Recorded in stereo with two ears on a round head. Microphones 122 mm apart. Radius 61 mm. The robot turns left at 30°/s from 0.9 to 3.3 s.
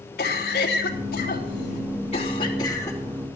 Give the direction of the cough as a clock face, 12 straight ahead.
9 o'clock.